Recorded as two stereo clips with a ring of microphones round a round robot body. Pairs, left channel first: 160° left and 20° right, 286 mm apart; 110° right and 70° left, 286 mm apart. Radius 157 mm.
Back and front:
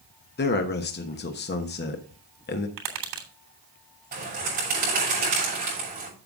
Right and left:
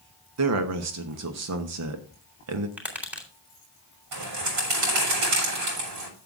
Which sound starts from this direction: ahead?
Tapping, at 2.8 s.